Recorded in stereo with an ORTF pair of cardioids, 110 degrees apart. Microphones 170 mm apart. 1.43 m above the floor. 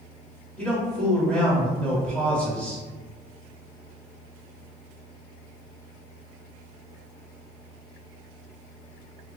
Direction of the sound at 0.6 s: 5° left.